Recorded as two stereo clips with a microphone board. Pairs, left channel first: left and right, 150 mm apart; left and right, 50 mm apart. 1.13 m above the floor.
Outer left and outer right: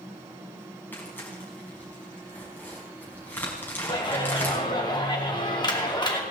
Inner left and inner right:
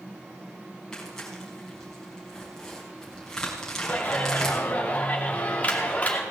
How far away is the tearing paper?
About 4.5 m.